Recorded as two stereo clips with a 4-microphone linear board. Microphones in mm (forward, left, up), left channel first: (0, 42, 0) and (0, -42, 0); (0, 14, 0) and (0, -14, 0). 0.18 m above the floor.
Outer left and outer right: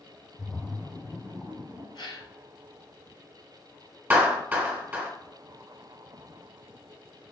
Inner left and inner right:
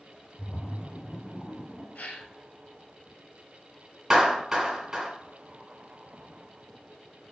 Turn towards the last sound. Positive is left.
turn(degrees=-20)  # may be behind; listen again after turning